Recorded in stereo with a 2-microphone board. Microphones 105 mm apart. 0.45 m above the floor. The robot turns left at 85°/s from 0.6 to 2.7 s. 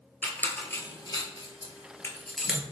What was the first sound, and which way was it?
A squeak, 20° left (ahead or behind).